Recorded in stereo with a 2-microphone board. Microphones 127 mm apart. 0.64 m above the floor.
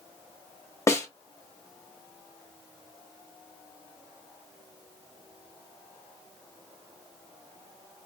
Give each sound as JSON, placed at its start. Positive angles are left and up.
{"t": 0.9, "sound": "a snare drum", "side_deg": 25, "distance_m": 0.8}